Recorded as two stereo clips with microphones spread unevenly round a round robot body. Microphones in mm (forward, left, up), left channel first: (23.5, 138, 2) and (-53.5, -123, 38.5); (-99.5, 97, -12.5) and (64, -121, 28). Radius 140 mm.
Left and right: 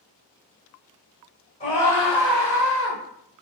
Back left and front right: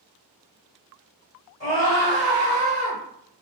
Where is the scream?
110° left, 1.6 m; by 3.0 s 105° right, 1.8 m.